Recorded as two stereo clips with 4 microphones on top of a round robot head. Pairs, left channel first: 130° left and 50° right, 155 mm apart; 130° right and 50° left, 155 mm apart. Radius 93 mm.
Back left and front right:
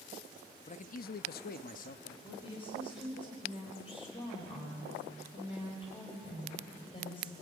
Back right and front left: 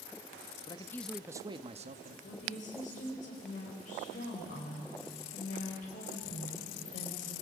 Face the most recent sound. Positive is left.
turn(degrees=-175)